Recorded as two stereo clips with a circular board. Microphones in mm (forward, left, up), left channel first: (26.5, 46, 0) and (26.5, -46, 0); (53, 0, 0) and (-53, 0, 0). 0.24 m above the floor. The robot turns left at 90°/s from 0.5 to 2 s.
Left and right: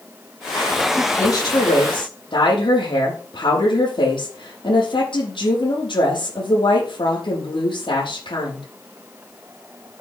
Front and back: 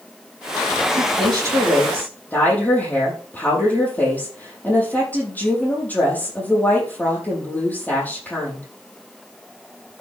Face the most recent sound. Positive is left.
turn(degrees=75)